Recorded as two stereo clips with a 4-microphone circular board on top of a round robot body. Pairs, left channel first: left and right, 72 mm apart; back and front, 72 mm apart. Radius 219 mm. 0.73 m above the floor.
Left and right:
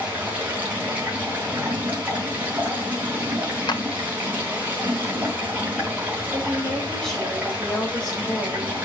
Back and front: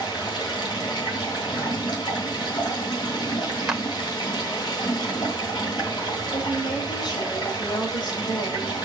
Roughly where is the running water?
Behind.